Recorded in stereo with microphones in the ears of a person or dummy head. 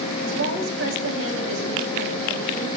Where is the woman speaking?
75° right (ahead or behind), 3 m.